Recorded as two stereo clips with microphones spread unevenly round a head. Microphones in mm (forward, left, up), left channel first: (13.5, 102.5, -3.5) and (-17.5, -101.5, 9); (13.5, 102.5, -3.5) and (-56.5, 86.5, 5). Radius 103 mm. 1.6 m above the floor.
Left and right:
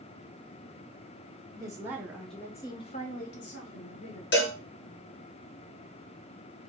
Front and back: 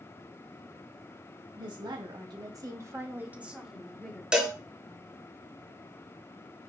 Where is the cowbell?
115° left, 1.3 m.